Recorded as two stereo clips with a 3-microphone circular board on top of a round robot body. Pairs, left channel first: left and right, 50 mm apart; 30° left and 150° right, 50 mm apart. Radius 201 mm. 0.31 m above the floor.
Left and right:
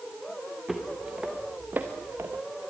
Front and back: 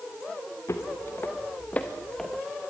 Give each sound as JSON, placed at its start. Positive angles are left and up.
{"t": 0.7, "sound": "footsteps", "azimuth_deg": -5, "distance_m": 3.0}